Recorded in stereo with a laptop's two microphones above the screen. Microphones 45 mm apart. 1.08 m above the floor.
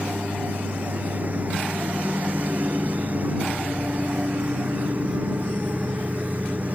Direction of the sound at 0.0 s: 40° right (ahead or behind).